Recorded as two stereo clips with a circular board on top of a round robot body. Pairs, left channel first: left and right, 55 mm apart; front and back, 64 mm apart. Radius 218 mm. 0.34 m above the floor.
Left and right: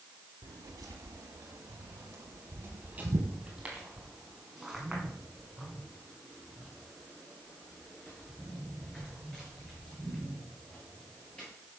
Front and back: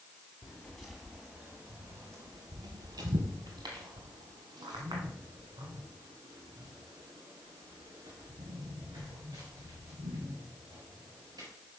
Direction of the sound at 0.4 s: 75° right.